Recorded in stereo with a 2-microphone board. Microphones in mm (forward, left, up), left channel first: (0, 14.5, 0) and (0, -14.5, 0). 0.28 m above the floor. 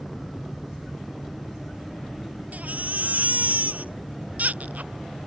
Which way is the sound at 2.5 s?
60° right (ahead or behind).